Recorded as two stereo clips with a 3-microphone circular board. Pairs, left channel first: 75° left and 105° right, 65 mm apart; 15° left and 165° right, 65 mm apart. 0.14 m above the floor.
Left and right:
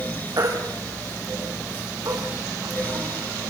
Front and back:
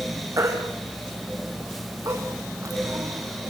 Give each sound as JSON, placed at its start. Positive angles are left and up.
{"t": 0.4, "sound": "a baby crying", "azimuth_deg": -125, "distance_m": 4.0}